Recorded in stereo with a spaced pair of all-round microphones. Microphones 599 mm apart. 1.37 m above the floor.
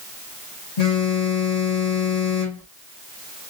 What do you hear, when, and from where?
0.8 s a phone buzzing: 80° left, 1.8 m